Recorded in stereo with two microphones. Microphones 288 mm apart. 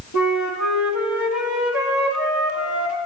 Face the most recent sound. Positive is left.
turn(degrees=85)